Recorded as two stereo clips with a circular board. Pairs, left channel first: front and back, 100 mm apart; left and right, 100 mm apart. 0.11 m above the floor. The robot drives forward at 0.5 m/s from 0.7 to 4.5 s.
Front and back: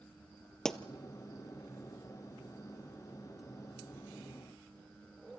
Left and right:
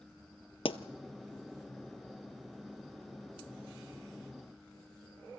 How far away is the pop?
About 0.9 m.